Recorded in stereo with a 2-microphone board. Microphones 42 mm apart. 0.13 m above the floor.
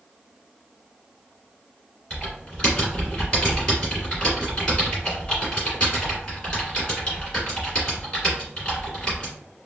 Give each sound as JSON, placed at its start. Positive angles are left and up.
{"t": 2.1, "sound": "typing on a keyboard", "side_deg": 20, "distance_m": 1.7}